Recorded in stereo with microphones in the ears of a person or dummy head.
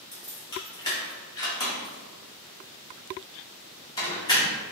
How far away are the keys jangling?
About 1.5 m.